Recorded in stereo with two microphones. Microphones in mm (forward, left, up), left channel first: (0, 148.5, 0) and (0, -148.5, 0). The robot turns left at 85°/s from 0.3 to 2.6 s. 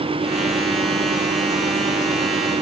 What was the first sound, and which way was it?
Only background noise.